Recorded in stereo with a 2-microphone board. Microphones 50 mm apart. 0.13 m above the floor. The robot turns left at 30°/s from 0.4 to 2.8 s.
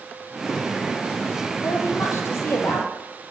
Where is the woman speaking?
85° left, 5 m; by 2.9 s 50° left, 5 m.